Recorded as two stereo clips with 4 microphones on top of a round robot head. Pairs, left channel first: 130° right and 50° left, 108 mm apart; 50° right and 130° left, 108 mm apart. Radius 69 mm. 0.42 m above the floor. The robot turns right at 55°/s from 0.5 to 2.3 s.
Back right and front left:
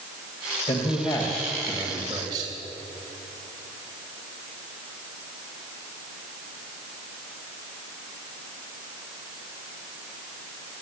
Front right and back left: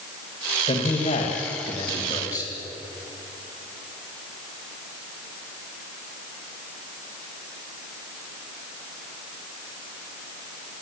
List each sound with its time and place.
0.7 s a man speaking: 90° right, 2.5 m; by 2.5 s straight ahead, 2.5 m